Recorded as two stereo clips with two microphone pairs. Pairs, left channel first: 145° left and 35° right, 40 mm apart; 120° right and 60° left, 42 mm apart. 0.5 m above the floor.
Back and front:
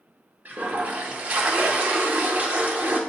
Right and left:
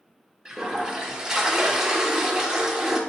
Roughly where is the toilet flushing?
Ahead.